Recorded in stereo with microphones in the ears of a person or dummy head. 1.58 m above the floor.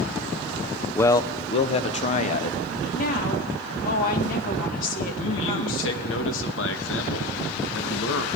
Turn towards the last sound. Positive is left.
turn(degrees=85)